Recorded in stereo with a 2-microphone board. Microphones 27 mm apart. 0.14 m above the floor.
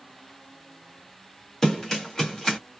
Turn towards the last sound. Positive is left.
turn(degrees=25)  # may be behind; listen again after turning